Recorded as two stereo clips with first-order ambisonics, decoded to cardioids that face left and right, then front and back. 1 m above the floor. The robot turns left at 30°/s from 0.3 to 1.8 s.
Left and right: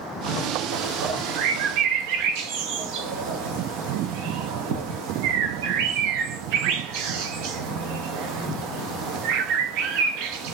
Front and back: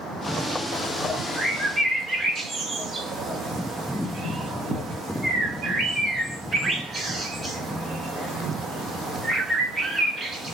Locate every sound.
0.7 s a bird: 75° right, 0.6 m; by 10.5 s 105° right, 0.6 m